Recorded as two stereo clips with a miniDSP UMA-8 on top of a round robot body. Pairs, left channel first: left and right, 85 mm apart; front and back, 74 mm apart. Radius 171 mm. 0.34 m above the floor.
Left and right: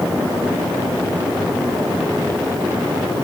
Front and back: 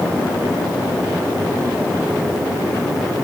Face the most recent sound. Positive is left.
No sound to turn to.